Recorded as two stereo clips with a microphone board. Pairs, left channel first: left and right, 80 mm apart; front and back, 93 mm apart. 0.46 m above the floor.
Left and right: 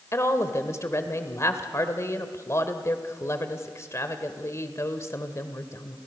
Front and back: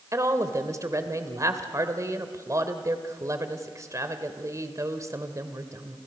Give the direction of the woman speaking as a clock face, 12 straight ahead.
8 o'clock.